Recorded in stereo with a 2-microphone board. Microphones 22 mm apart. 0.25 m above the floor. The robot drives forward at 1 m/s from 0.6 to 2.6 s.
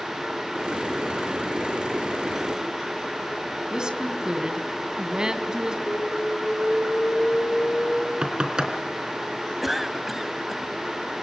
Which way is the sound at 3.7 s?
35° right (ahead or behind).